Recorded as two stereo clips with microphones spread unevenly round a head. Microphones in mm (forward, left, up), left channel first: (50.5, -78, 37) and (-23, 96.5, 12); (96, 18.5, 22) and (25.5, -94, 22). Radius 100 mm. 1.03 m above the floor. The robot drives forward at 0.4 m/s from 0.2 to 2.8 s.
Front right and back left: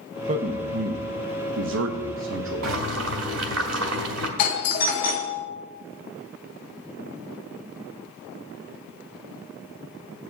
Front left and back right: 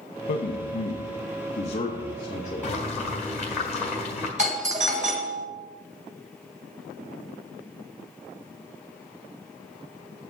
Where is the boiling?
140° left, 1.3 m; by 4.3 s 145° left, 1.4 m.